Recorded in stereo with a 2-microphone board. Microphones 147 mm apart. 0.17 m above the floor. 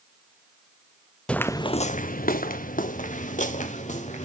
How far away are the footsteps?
About 0.6 m.